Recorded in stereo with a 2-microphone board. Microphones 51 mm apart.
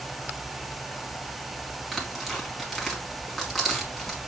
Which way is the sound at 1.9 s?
5° left (ahead or behind).